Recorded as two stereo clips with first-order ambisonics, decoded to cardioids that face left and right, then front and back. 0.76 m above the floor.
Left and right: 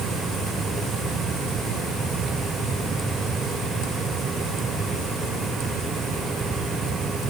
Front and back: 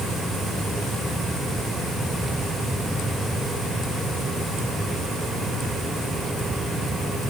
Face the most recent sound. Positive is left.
No sound to turn to.